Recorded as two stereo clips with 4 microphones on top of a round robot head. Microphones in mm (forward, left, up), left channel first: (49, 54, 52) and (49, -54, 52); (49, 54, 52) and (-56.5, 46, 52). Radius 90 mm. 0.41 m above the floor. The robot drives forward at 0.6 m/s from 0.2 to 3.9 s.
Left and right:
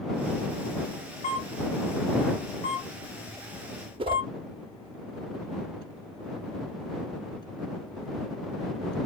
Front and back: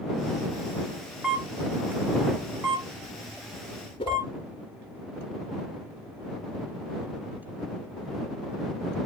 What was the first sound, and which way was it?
A camera shutter, 105° left.